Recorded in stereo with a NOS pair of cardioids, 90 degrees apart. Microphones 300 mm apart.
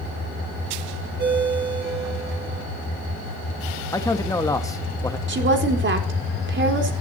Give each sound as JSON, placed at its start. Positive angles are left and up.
{"t": 1.2, "sound": "a ringtone", "azimuth_deg": -35, "distance_m": 8.5}
{"t": 3.9, "sound": "a man speaking", "azimuth_deg": 10, "distance_m": 1.4}
{"t": 5.3, "sound": "a woman speaking", "azimuth_deg": -40, "distance_m": 4.0}